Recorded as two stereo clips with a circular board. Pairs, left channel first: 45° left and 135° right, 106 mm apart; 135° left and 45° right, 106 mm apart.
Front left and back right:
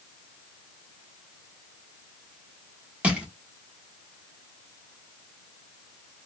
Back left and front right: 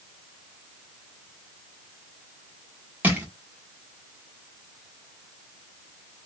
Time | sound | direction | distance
3.0 | crushing | 80° right | 1.0 m